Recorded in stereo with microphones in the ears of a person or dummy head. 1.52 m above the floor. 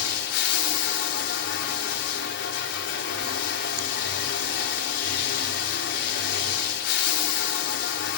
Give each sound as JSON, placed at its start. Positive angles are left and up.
{"t": 0.0, "sound": "running water", "side_deg": 60, "distance_m": 0.9}